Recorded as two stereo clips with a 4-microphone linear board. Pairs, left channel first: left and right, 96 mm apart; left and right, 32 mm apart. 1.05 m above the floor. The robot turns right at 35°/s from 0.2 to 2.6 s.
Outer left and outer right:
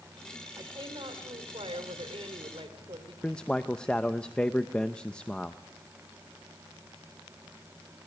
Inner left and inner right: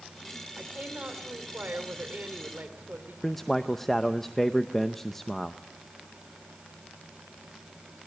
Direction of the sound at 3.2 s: 10° left (ahead or behind).